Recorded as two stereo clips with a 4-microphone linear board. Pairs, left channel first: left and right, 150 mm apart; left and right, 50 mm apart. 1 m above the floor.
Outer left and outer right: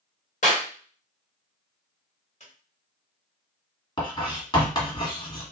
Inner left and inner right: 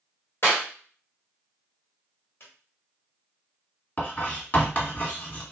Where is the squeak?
50° left (ahead or behind), 1.2 m.